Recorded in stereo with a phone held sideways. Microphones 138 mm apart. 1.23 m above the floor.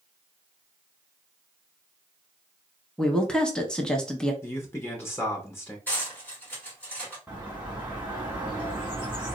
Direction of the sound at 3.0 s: 5° left (ahead or behind).